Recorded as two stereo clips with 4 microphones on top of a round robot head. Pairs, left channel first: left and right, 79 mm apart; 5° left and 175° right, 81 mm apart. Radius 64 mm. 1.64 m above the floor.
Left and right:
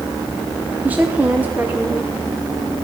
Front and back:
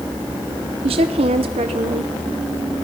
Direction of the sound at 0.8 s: 165° right.